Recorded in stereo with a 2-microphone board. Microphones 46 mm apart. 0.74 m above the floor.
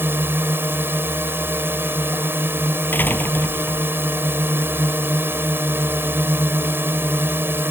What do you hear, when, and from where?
0.0 s a drone: 55° right (ahead or behind)
2.9 s a door slam: 45° left (ahead or behind)